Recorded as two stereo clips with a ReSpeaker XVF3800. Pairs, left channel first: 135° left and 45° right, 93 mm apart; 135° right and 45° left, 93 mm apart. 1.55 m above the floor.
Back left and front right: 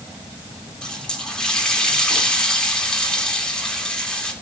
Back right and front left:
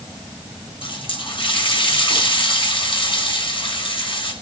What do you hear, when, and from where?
0.8 s a running tap: 145° right, 3.5 m